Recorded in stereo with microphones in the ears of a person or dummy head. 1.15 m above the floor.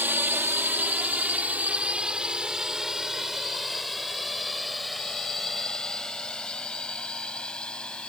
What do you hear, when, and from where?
0.0 s a drone: 20° right (ahead or behind); by 8.1 s centre (ahead or behind)